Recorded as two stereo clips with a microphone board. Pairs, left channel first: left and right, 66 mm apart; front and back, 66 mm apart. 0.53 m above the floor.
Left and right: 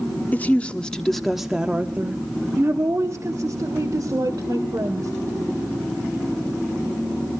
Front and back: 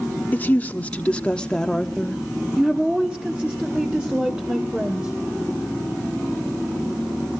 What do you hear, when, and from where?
0.3 s a woman speaking: 45° left, 1.3 m; by 5.1 s 110° right, 2.5 m